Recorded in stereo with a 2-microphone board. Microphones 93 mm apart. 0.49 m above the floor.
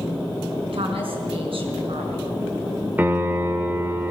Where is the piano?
20° right (ahead or behind), 1.5 m.